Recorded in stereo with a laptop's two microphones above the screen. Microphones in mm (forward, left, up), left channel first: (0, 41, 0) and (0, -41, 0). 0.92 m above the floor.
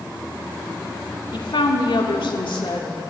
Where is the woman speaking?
80° left, 1.9 m.